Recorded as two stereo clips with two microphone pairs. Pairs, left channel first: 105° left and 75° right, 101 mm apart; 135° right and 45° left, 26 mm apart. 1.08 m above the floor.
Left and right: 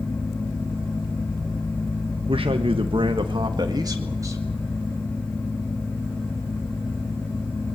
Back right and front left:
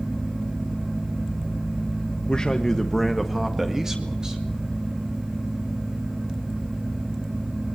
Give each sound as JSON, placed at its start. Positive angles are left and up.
{"t": 2.3, "sound": "a man speaking", "azimuth_deg": -85, "distance_m": 1.4}